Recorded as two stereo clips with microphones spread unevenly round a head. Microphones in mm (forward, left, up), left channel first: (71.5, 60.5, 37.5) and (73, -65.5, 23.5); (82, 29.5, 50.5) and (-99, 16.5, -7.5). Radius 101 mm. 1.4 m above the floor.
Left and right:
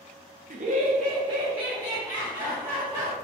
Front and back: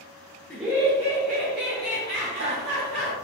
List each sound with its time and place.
0.5 s laughter: 85° right, 0.6 m; by 3.1 s 170° right, 2 m